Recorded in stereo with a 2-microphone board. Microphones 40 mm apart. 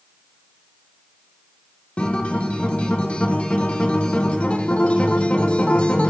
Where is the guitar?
30° left (ahead or behind), 0.8 m.